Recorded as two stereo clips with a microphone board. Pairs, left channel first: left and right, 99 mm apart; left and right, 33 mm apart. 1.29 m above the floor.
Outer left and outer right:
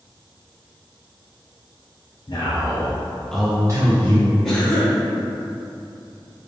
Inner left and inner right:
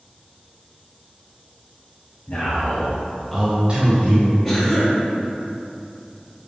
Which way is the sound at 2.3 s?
50° left (ahead or behind).